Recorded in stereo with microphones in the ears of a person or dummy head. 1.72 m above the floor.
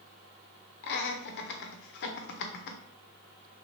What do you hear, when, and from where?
0.8 s laughter: 65° left (ahead or behind), 0.9 m